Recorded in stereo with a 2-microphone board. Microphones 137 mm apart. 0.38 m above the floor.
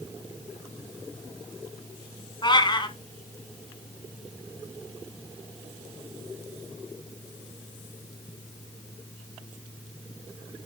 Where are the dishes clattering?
I don't hear dishes clattering.